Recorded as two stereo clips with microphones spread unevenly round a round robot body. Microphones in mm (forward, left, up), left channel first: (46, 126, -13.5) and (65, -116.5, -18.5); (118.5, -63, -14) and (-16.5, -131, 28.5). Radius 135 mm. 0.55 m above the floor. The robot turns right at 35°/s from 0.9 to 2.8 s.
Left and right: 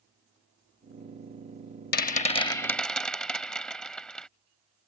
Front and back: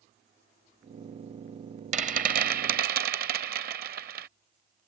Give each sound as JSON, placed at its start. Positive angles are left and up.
{"t": 1.9, "sound": "a rattle", "azimuth_deg": 150}